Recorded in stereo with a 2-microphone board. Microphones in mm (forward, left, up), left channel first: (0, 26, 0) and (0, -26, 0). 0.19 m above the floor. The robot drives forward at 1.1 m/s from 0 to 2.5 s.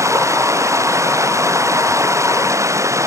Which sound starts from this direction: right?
Running water, at 0.0 s.